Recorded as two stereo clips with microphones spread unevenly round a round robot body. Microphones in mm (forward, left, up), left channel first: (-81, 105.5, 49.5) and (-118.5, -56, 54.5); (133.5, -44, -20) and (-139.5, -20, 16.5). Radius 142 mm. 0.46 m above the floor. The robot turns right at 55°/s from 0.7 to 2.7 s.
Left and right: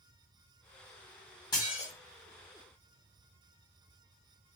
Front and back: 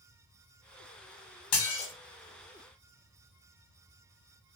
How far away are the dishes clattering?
About 0.9 m.